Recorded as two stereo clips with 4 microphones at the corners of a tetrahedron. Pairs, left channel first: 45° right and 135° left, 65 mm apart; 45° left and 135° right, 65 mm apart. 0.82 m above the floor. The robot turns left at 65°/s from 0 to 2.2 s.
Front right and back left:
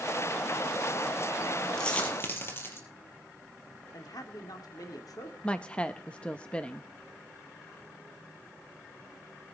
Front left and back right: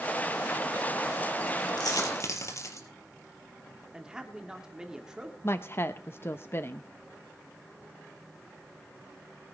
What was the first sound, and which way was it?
A dropped coin, 35° left.